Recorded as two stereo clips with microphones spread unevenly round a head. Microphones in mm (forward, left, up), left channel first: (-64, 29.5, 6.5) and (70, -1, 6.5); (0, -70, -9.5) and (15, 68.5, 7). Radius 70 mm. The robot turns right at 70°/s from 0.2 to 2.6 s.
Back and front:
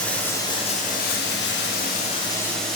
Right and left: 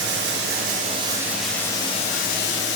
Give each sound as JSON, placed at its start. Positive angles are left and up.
{"t": 0.0, "sound": "running water", "azimuth_deg": 85, "distance_m": 0.7}